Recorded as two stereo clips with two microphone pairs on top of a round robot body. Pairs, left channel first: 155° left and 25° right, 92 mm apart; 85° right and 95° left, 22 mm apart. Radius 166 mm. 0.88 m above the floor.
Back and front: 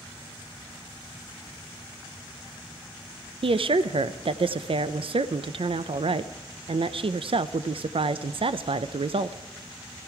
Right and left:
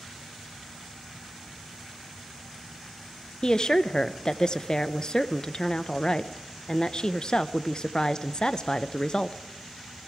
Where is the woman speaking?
40° right, 0.6 m.